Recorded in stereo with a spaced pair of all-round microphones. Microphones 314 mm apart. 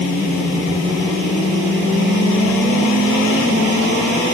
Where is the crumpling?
No crumpling in this recording.